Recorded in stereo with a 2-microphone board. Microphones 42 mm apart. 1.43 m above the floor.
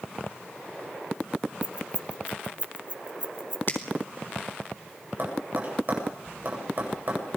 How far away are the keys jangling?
About 0.8 m.